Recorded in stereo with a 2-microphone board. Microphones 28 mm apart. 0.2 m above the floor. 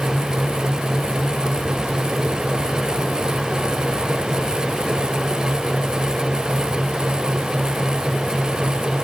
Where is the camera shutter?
No camera shutter in this recording.